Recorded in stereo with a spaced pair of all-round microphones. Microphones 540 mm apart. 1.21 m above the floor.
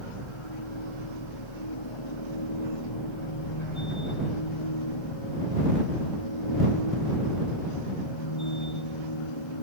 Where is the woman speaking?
No woman speaking in this recording.